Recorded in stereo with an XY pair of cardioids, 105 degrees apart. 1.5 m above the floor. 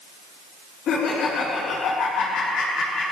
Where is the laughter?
70° left, 4.5 m.